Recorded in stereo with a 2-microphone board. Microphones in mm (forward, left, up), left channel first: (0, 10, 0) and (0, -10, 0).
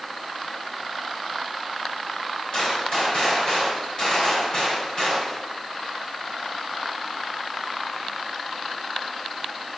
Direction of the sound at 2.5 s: 45° left (ahead or behind).